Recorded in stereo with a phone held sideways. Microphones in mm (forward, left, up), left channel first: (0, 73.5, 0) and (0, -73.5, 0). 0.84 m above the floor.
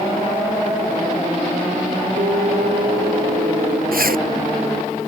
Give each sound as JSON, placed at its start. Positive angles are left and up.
{"t": 2.2, "sound": "an alarm", "side_deg": -80}
{"t": 3.9, "sound": "a zipper", "side_deg": -80}